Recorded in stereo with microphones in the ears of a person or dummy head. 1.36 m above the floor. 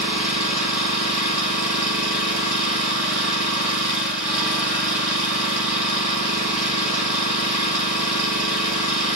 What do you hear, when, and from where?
0.0 s an engine running: 5° right (ahead or behind), 5 m